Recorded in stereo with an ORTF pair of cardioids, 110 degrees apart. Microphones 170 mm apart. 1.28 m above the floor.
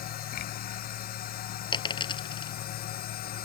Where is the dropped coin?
30° left.